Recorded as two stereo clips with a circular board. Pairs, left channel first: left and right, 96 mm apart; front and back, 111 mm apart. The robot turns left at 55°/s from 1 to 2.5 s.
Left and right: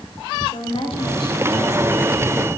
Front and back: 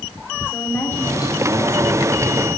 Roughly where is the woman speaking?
Left.